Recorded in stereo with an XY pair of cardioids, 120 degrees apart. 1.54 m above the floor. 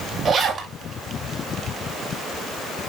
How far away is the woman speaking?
I don't hear a woman speaking.